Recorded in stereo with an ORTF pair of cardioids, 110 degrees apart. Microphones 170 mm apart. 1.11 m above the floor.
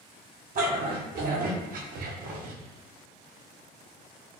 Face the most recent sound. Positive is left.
turn(degrees=-75)